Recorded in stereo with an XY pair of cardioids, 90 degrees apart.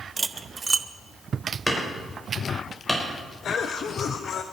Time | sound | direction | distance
0.2 | cutlery clinking | 35° right | 0.8 m
1.7 | hammering | 10° left | 4.5 m
3.4 | a cough | 65° left | 1.1 m